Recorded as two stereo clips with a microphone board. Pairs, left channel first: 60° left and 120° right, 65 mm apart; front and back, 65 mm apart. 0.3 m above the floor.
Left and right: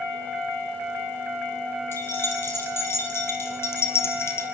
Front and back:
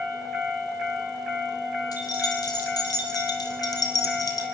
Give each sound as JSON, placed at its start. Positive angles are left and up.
{"t": 1.9, "sound": "keys jangling", "azimuth_deg": 10, "distance_m": 6.0}